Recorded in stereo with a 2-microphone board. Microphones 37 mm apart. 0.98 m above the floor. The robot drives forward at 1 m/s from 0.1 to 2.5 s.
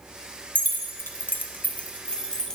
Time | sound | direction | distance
0.6 | keys jangling | 45° left (ahead or behind) | 0.8 m